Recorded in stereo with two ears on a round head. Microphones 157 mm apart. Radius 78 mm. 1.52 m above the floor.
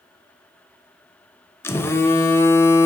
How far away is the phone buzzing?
About 0.6 m.